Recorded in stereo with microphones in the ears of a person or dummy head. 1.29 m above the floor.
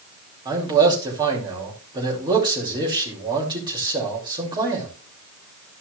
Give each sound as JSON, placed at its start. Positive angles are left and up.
{"t": 0.5, "sound": "a man speaking", "side_deg": -20, "distance_m": 3.0}